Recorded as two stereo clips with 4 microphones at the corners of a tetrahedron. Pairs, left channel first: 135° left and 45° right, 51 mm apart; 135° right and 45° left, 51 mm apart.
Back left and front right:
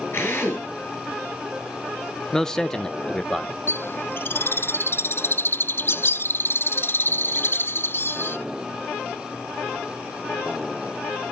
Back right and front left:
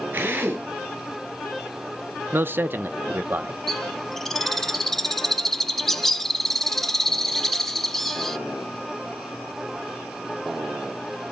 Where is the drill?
95° left, 8.5 m.